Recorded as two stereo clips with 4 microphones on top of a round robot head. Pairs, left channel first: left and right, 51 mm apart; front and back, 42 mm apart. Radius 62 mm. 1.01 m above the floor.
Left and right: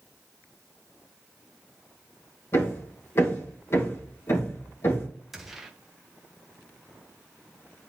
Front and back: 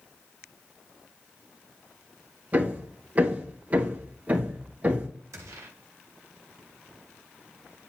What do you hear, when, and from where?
2.5 s hammering: 130° left, 2.5 m
5.3 s a gunshot: 175° right, 1.0 m